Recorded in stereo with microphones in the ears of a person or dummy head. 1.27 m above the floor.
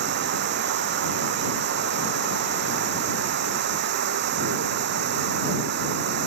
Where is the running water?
40° right (ahead or behind).